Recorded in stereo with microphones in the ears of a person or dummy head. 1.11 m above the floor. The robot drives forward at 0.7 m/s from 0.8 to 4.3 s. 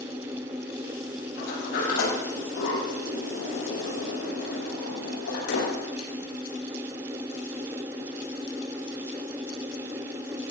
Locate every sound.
1.4 s a sliding door: 65° left (ahead or behind), 7.5 m; by 6.1 s 80° left, 7 m